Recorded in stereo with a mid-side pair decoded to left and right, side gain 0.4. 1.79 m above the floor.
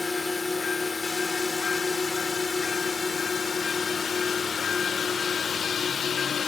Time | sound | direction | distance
0.0 | a drone | 20° left | ?